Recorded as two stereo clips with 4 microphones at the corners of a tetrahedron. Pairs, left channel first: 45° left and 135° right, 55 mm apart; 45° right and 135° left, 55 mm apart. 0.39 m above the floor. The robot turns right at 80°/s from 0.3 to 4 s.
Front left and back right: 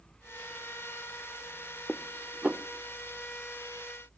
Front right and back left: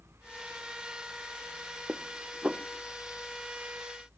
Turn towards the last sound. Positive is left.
turn(degrees=-60)